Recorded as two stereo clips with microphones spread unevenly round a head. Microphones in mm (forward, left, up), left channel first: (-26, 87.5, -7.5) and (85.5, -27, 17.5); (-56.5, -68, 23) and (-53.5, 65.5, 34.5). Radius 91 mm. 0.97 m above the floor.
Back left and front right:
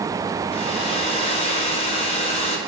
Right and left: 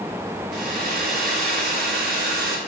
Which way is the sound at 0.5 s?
85° left.